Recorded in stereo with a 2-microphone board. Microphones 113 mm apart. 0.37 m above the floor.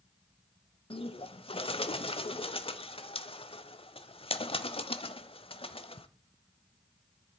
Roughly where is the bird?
Left.